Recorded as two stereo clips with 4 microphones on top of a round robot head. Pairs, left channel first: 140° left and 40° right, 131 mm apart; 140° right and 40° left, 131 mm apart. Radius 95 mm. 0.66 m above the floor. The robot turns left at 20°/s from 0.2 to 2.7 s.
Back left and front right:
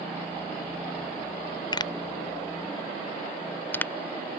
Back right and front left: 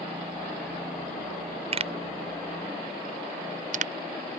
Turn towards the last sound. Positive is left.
turn(degrees=65)